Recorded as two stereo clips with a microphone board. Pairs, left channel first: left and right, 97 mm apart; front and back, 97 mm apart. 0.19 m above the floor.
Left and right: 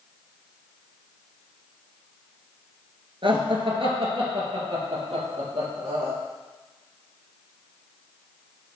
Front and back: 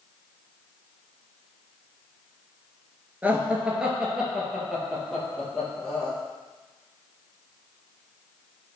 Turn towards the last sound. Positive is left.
turn(degrees=-85)